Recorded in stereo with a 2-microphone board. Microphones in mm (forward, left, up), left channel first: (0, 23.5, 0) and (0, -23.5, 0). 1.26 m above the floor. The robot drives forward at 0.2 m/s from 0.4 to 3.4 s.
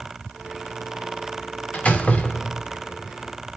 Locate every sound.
1.7 s a door slam: 30° left (ahead or behind), 0.7 m; by 2.8 s 25° left (ahead or behind), 0.9 m